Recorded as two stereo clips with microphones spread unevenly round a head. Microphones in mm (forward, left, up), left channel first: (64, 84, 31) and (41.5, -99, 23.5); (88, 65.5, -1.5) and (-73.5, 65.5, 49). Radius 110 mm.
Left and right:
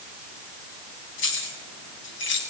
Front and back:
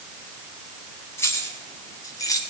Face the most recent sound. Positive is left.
turn(degrees=70)